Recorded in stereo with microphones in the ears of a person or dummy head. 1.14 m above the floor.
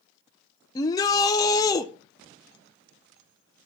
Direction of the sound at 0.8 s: 20° left (ahead or behind).